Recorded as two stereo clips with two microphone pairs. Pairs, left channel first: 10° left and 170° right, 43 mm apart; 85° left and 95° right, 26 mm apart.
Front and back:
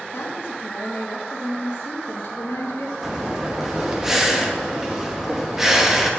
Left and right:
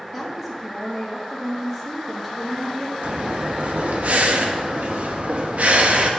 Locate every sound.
0.1 s a woman speaking: 20° right, 2 m
3.0 s breathing: 90° right, 1.1 m